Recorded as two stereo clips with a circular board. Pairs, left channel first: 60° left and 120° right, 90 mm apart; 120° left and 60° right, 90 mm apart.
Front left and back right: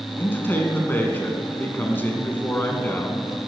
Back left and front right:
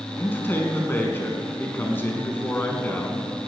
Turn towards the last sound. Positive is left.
turn(degrees=90)